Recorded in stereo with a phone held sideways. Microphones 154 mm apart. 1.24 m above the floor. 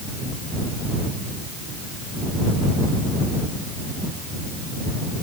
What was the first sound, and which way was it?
Only background noise.